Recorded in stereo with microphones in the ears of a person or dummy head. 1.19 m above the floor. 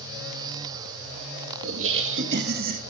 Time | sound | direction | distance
1.6 | laughter | 70° right (ahead or behind) | 2.5 m